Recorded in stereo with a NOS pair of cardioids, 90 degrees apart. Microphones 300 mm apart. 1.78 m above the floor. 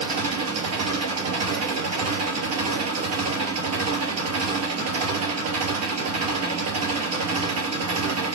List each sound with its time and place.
0.0 s an engine running: 55° right, 3 m